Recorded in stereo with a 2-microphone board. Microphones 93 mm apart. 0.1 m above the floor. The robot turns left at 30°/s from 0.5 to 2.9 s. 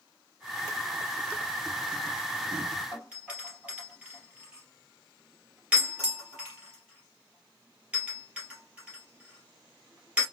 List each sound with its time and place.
2.9 s a doorbell: 15° right (ahead or behind), 3 m